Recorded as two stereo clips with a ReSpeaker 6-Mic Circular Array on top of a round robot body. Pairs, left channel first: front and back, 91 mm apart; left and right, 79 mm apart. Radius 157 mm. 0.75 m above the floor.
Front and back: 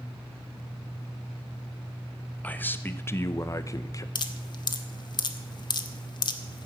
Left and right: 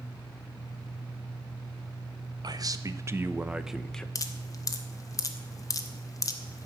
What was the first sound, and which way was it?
A man speaking, 70° right.